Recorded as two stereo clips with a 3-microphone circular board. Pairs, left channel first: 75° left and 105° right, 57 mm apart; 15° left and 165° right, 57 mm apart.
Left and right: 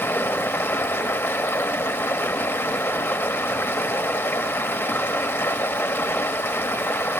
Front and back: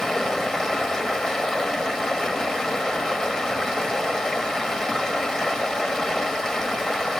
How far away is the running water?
About 0.9 m.